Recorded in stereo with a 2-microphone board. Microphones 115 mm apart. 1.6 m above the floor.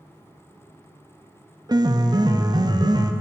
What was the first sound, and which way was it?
A piano, 40° right (ahead or behind).